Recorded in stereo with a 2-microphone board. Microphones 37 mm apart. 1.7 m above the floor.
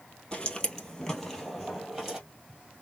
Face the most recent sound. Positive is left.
turn(degrees=-15)  # may be behind; listen again after turning